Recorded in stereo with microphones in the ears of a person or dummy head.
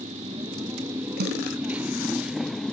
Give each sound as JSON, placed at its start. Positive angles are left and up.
{"t": 0.0, "sound": "a motorcycle", "side_deg": -25}
{"t": 1.2, "sound": "a snare drum", "side_deg": -50}